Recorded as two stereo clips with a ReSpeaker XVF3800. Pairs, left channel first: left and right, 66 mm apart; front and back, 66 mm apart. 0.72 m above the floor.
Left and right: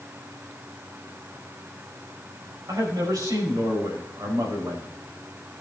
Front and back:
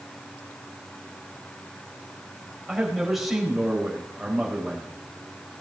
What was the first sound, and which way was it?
A man speaking, 95° right.